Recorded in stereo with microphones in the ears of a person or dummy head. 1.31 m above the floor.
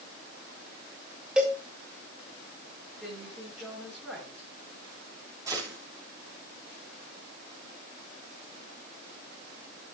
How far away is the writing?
No writing in this recording.